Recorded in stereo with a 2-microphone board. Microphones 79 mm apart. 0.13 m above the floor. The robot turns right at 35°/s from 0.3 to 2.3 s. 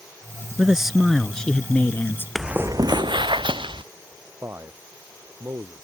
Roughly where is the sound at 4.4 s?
Right.